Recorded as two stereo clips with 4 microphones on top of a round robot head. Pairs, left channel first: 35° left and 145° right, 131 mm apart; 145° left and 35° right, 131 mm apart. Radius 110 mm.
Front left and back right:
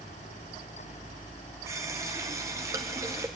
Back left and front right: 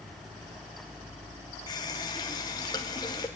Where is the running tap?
170° left, 0.6 m.